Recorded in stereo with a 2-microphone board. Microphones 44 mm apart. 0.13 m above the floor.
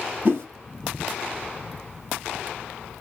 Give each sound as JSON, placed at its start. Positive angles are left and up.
{"t": 0.2, "sound": "a whoosh", "side_deg": -50, "distance_m": 1.7}